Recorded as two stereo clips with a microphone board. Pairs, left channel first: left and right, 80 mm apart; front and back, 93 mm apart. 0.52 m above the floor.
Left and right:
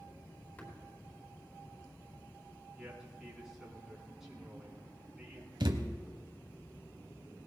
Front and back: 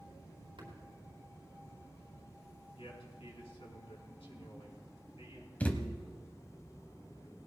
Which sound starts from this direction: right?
A thud, at 5.6 s.